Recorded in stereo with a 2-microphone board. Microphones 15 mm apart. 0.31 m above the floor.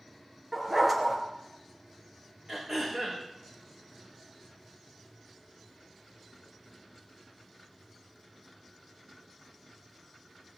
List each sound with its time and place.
0.5 s a dog barking: 10° right (ahead or behind), 2.5 m
2.5 s throat clearing: 25° right (ahead or behind), 6.5 m